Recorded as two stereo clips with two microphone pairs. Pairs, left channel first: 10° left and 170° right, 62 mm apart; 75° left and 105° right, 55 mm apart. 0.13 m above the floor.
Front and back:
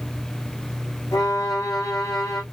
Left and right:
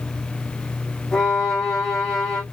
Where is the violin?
5° right, 2.5 m.